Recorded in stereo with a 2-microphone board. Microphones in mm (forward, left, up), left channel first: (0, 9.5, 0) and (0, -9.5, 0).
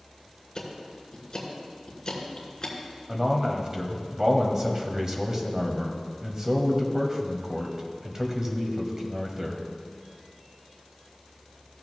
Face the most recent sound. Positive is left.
turn(degrees=-25)  # may be behind; listen again after turning